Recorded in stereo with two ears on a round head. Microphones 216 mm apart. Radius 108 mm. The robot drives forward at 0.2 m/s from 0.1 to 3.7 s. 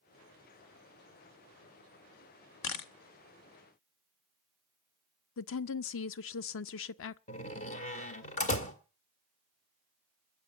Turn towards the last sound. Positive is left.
turn(degrees=30)  # may be behind; listen again after turning